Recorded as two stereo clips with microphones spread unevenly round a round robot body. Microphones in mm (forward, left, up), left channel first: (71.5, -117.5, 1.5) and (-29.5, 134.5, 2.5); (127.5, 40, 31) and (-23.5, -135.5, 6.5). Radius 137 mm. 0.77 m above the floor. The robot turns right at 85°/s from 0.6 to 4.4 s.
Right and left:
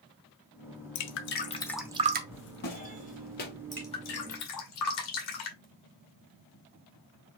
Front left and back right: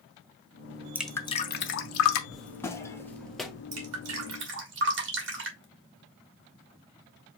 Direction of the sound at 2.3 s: 40° right.